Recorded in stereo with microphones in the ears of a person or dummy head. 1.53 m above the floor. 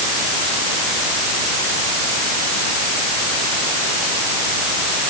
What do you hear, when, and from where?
Only background noise.